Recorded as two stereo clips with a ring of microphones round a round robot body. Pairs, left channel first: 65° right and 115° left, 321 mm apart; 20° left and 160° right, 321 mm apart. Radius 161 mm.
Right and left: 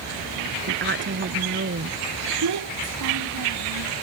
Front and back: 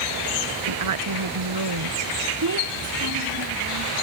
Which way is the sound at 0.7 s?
170° left.